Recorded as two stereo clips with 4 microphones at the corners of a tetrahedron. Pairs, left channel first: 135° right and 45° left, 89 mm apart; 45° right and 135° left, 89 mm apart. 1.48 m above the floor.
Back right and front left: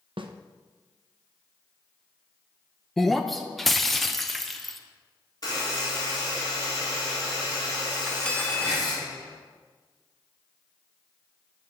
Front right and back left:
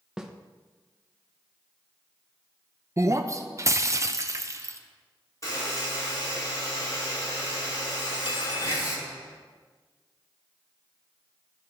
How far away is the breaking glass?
About 0.6 m.